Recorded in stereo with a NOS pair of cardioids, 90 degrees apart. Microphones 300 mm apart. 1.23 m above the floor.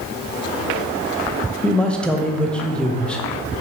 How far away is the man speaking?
About 0.6 m.